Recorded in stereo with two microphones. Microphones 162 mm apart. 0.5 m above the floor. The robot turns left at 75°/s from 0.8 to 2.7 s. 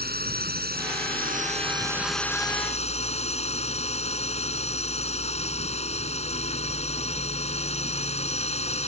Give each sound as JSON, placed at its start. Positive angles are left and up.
{"t": 0.0, "sound": "a drone", "azimuth_deg": -80}